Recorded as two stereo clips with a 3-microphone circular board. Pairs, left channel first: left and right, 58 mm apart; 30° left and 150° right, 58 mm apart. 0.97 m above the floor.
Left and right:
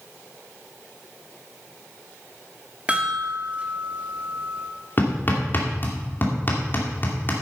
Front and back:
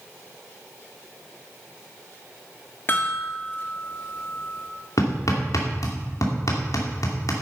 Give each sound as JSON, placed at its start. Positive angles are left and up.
{"t": 2.9, "sound": "a chime", "azimuth_deg": -25, "distance_m": 1.9}
{"t": 5.0, "sound": "hammering", "azimuth_deg": 35, "distance_m": 2.5}